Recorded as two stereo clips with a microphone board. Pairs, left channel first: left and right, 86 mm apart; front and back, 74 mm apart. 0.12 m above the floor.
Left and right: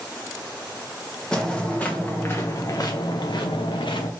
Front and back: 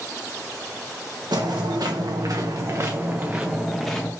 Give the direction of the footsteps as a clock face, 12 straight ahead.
6 o'clock.